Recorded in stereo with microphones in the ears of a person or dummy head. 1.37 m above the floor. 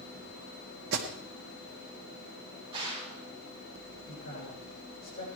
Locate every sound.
0.9 s an alarm: 60° right (ahead or behind), 1.6 m
2.7 s a gunshot: 30° right (ahead or behind), 6.5 m
4.1 s a man speaking: 50° left (ahead or behind), 6.5 m